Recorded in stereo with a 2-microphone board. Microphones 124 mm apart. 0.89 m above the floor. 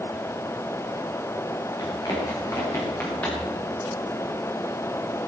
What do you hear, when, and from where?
1.8 s running footsteps: 30° left (ahead or behind), 7 m; by 3.5 s 15° left (ahead or behind), 7 m